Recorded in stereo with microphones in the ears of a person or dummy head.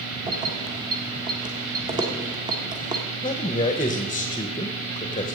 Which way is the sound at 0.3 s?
20° right (ahead or behind).